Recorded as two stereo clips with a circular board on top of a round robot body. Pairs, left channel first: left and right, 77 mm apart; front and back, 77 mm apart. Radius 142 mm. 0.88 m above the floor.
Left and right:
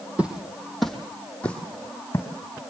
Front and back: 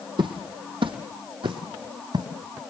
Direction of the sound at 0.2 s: 165° right.